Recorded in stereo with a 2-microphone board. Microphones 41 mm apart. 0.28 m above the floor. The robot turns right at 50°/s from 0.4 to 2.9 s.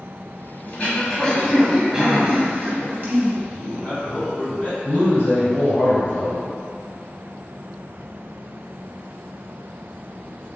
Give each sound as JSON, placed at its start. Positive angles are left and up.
{"t": 0.7, "sound": "throat clearing", "azimuth_deg": 135, "distance_m": 0.8}
{"t": 3.5, "sound": "a man speaking", "side_deg": 35, "distance_m": 1.5}
{"t": 4.8, "sound": "a man speaking", "side_deg": 45, "distance_m": 1.6}